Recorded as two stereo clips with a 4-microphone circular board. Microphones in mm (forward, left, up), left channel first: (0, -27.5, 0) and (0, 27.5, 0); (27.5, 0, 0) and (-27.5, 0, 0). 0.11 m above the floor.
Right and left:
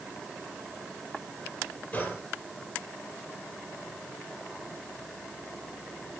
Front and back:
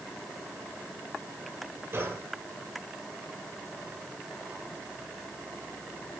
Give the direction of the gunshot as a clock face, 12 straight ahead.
5 o'clock.